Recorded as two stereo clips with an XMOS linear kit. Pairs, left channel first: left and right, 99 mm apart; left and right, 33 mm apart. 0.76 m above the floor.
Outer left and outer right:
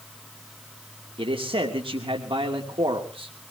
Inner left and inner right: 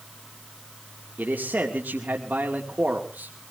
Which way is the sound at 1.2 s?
65° right (ahead or behind).